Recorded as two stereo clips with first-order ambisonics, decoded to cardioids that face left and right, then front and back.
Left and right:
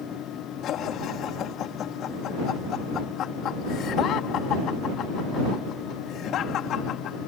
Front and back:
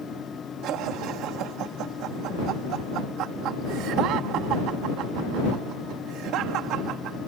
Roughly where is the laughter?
Behind left.